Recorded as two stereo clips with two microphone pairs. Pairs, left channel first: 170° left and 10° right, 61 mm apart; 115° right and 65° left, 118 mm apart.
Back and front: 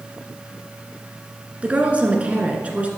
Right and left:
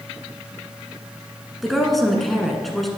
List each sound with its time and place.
1.6 s a woman speaking: 30° right, 1.3 m